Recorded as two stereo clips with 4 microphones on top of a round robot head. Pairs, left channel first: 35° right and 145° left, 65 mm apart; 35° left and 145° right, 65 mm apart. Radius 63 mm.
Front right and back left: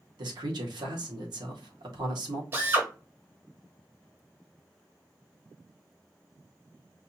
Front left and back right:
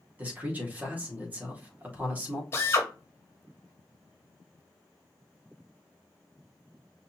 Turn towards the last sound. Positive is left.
turn(degrees=90)